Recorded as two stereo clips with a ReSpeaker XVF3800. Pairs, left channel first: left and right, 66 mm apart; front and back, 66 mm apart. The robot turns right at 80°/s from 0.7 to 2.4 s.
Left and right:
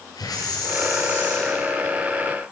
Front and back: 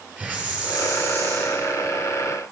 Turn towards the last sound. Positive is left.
turn(degrees=-110)